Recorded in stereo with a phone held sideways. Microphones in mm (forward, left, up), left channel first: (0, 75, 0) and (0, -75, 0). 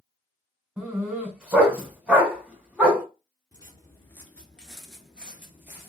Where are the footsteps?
25° left (ahead or behind), 1.0 m; by 5.9 s 15° right (ahead or behind), 1.3 m.